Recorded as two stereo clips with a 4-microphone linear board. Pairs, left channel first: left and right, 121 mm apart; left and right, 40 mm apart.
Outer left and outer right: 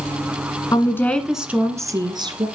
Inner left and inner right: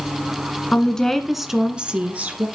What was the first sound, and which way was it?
A woman speaking, 30° left (ahead or behind).